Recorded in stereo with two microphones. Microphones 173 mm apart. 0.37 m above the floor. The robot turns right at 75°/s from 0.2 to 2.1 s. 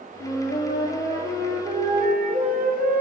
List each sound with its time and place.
0.2 s a flute: 100° left, 1.1 m; by 3.0 s 115° right, 1.1 m